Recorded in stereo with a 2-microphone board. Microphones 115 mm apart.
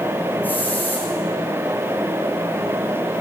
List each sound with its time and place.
0.4 s a hiss: 15° left (ahead or behind), 6 m